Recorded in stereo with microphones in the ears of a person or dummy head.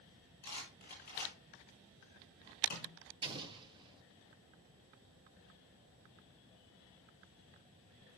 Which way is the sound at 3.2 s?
25° right (ahead or behind).